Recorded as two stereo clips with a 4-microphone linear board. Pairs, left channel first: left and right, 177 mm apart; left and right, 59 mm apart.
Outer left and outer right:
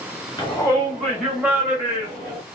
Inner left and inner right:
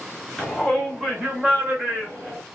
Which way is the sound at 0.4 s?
20° left (ahead or behind).